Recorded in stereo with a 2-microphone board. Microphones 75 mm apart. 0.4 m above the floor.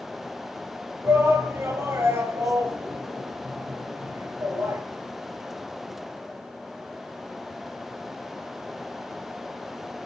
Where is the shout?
40° right (ahead or behind), 6 m.